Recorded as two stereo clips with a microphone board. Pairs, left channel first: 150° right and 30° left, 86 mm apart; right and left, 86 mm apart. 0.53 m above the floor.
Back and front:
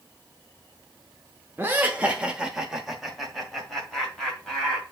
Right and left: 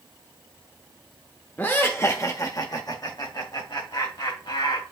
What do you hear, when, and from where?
1.6 s laughter: 30° right, 1.0 m; by 4.8 s 70° right, 2.5 m